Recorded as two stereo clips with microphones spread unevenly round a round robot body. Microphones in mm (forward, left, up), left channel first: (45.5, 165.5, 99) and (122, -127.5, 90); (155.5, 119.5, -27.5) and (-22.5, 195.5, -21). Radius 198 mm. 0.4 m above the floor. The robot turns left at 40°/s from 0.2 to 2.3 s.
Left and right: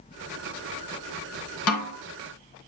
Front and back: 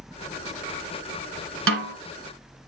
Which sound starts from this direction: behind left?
A snare drum, at 1.7 s.